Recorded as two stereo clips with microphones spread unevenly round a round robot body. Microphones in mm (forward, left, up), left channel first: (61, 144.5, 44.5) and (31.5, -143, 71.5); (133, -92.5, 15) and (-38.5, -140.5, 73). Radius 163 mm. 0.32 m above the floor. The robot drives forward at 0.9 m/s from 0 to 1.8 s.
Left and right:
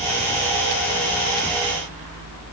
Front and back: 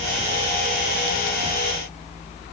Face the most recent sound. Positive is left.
No sound to turn to.